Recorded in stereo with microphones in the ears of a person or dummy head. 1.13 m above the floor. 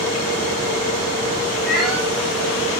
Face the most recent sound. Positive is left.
turn(degrees=-5)  # may be behind; listen again after turning